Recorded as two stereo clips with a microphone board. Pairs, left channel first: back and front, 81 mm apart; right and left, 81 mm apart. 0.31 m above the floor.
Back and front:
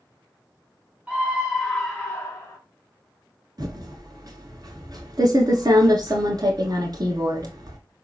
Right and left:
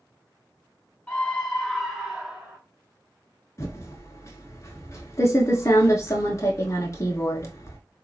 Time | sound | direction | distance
1.1 | a scream | 50° right | 1.0 m
3.6 | typing on a keyboard | 40° right | 0.8 m